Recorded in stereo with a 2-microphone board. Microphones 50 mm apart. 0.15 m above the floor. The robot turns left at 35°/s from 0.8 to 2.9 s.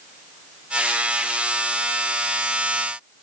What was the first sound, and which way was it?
Only background noise.